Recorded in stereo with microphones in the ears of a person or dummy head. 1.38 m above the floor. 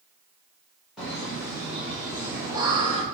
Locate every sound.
1.0 s laughter: 5° right (ahead or behind), 1.7 m; by 3.0 s 30° right (ahead or behind), 0.5 m